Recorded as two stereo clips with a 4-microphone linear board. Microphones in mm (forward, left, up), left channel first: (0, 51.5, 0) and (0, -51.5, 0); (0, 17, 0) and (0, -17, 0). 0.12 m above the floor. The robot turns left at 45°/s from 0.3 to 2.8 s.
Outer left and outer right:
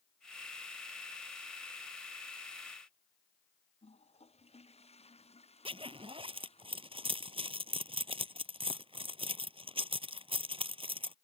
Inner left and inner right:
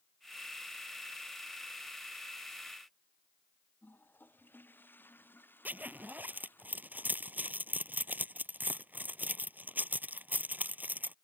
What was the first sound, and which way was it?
A toilet flushing, 90° left.